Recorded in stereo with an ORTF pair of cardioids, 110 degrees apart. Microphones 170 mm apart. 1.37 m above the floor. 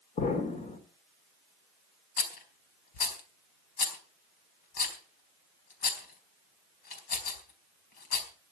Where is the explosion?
45° left, 3.5 m.